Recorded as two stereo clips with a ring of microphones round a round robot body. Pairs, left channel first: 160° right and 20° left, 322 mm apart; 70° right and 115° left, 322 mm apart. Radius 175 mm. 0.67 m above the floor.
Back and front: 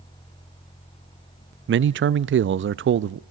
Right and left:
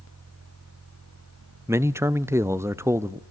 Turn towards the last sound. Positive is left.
turn(degrees=35)